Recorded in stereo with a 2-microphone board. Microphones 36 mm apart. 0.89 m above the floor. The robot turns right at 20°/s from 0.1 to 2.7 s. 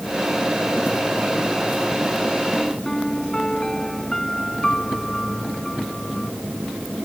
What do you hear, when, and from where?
2.9 s a piano: 15° left (ahead or behind)